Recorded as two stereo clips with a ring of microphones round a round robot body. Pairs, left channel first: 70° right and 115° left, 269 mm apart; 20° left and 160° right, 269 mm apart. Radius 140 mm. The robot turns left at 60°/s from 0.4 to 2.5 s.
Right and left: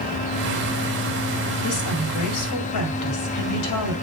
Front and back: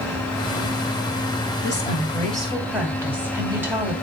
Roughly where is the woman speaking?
Ahead.